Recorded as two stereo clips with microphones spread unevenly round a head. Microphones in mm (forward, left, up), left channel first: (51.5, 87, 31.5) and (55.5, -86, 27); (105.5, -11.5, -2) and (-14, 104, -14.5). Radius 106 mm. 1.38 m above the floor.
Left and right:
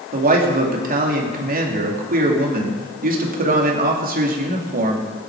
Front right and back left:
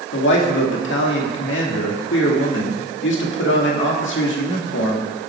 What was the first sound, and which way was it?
A man speaking, 50° right.